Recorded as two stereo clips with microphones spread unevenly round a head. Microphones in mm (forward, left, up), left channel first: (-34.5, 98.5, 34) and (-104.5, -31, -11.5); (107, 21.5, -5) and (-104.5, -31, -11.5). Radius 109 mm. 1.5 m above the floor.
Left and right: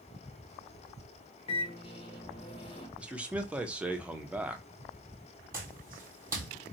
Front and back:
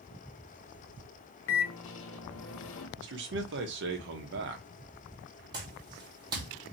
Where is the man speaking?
155° left, 0.8 m.